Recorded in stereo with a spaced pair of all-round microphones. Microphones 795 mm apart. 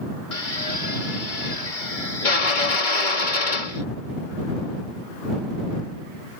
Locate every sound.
0.3 s a drill: 75° left (ahead or behind)